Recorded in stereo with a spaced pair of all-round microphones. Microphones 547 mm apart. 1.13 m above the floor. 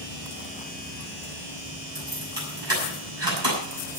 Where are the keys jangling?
50° right (ahead or behind), 7.5 m.